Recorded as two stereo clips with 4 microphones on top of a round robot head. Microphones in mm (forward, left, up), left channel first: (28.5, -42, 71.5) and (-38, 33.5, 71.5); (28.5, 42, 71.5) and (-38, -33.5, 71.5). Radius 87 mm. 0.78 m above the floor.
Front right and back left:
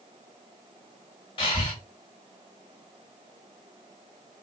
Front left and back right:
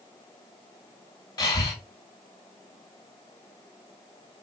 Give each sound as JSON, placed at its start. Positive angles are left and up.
{"t": 1.4, "sound": "breathing", "azimuth_deg": -5, "distance_m": 0.7}